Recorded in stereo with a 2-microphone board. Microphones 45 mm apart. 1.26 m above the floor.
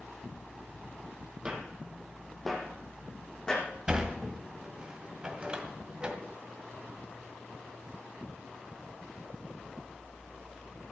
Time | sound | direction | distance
1.4 | footsteps | 20° right (ahead or behind) | 1.9 m
3.9 | a sliding door | 20° right (ahead or behind) | 1.8 m